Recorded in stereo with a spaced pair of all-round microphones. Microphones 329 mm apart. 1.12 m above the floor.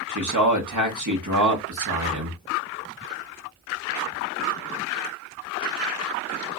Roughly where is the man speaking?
Right.